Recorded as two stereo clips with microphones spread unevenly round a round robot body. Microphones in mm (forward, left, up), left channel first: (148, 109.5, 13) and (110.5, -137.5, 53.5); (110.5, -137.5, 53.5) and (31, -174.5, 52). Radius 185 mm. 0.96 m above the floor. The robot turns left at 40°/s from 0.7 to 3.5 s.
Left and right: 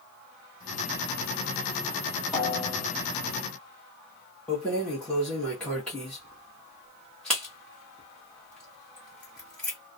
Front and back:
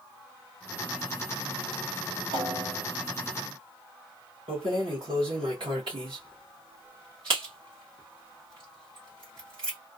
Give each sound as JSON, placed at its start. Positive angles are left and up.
{"t": 2.3, "sound": "a snare drum", "azimuth_deg": 170, "distance_m": 1.1}
{"t": 4.5, "sound": "keys jangling", "azimuth_deg": 165, "distance_m": 0.6}